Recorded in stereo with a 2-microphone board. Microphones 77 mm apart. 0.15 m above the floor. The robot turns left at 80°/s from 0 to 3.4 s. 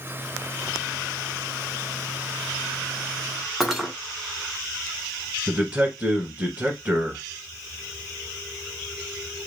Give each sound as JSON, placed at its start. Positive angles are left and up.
{"t": 3.6, "sound": "cutlery clinking", "side_deg": -5, "distance_m": 0.8}
{"t": 5.5, "sound": "a man speaking", "side_deg": -20, "distance_m": 1.0}